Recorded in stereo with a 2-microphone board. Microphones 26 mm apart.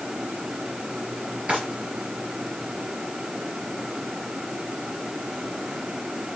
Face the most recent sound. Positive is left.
turn(degrees=-60)  # may be behind; listen again after turning